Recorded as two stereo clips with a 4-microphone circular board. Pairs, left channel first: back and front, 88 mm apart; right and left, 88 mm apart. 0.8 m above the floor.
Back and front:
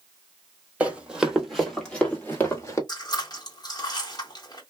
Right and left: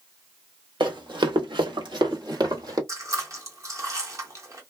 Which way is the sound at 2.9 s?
140° left.